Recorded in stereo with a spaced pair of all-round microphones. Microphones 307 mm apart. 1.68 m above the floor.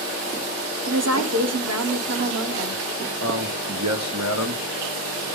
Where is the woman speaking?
55° right (ahead or behind), 1.1 m.